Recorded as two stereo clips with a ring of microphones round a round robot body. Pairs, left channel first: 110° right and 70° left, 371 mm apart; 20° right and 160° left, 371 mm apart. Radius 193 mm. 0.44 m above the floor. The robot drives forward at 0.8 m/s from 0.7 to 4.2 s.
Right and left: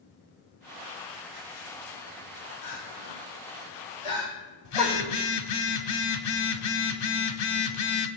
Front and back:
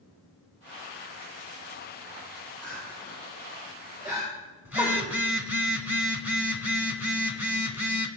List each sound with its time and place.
2.6 s crying: 110° right, 4 m; by 5.2 s 125° right, 4.5 m
4.7 s a phone buzzing: 120° right, 1.0 m